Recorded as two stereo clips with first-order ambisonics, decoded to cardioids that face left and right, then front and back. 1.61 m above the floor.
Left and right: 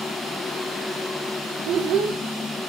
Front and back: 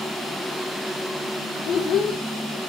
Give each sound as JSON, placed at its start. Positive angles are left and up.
{"t": 1.6, "sound": "a child speaking", "azimuth_deg": -50, "distance_m": 0.5}